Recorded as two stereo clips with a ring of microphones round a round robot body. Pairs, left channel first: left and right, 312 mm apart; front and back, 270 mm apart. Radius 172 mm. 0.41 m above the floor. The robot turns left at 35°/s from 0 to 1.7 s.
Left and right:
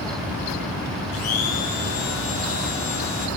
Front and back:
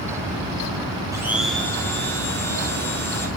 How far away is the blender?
About 5 m.